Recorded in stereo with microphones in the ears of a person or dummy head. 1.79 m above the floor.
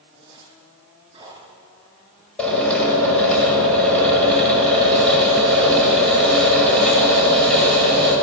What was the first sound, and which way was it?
A zipper, 30° right (ahead or behind).